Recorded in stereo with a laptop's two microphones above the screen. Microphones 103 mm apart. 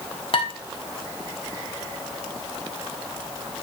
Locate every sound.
0.3 s dishes clattering: 55° left (ahead or behind), 1.2 m